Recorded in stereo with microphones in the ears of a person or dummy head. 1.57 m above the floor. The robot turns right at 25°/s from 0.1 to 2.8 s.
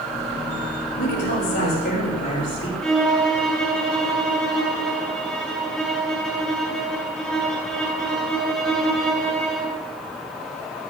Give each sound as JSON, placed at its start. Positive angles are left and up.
{"t": 1.0, "sound": "a woman speaking", "azimuth_deg": 110, "distance_m": 7.0}
{"t": 2.8, "sound": "a violin", "side_deg": 5, "distance_m": 5.0}